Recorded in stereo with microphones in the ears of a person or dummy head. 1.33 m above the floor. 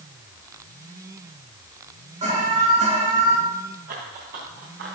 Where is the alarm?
35° right (ahead or behind), 8 m.